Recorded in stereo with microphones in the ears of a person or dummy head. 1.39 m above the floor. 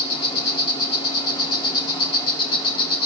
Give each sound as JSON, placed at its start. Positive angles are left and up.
{"t": 0.0, "sound": "an insect", "side_deg": 30, "distance_m": 1.7}